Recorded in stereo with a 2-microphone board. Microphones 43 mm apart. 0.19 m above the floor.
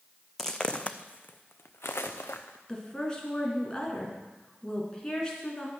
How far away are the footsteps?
About 0.7 m.